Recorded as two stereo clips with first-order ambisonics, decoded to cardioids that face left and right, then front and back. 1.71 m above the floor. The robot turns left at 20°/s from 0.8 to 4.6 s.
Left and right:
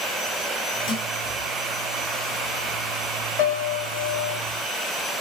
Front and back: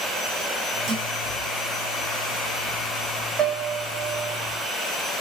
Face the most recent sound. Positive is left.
turn(degrees=90)